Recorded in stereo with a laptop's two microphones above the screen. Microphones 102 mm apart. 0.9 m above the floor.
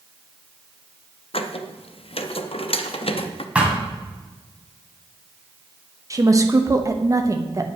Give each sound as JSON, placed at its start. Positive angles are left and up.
{"t": 1.3, "sound": "a squeak", "side_deg": 65, "distance_m": 0.6}
{"t": 3.5, "sound": "a thud", "side_deg": -10, "distance_m": 1.7}
{"t": 6.1, "sound": "a woman speaking", "side_deg": -35, "distance_m": 0.9}